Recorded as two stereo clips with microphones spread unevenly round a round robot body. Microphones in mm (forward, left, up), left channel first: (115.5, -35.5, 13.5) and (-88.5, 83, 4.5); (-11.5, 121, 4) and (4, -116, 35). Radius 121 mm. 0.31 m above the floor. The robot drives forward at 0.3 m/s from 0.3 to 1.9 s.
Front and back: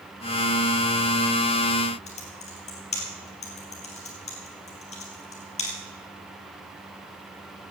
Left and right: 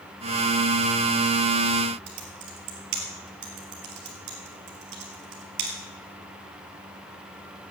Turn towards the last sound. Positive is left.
turn(degrees=-95)